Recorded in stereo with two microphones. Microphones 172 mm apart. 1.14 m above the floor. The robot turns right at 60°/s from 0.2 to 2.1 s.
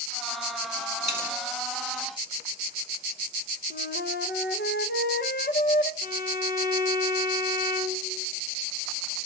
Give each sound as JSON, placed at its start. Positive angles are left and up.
{"t": 1.0, "sound": "a dropped coin", "side_deg": 40, "distance_m": 2.0}
{"t": 3.7, "sound": "a flute", "side_deg": 75, "distance_m": 0.7}
{"t": 6.0, "sound": "a violin", "side_deg": 55, "distance_m": 1.7}